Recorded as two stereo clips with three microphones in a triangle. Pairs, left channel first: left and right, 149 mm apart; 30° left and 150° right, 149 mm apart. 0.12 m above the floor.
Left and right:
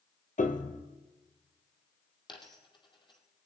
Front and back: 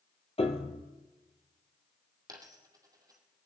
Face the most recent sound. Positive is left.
turn(degrees=145)